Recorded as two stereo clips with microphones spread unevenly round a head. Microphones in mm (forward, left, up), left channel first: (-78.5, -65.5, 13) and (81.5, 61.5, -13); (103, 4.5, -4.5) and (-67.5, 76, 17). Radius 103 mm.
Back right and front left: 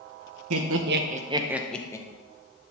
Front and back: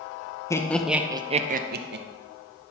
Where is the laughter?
55° left, 0.8 m; by 2.0 s 150° left, 0.9 m.